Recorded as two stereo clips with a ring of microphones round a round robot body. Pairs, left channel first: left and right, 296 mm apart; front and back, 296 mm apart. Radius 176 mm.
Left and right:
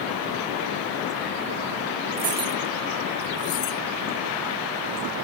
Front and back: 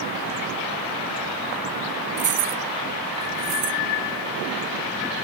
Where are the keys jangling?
145° right; by 3.8 s 135° left.